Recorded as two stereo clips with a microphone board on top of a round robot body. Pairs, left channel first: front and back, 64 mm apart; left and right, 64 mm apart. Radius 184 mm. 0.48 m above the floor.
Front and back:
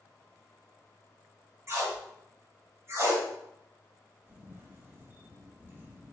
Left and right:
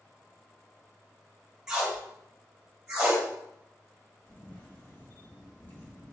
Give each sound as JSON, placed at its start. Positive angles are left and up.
{"t": 1.7, "sound": "tape being pulled", "azimuth_deg": -165, "distance_m": 1.6}
{"t": 4.3, "sound": "a camera shutter", "azimuth_deg": 140, "distance_m": 1.7}